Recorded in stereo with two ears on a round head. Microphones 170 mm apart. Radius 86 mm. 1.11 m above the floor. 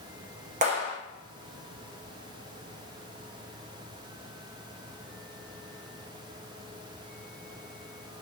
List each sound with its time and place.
0.6 s a clap: 35° right (ahead or behind), 0.6 m